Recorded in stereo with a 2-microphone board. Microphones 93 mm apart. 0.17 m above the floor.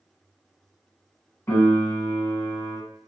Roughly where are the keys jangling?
No keys jangling in this recording.